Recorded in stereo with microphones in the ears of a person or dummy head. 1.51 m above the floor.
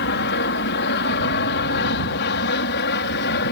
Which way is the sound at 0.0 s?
55° left (ahead or behind).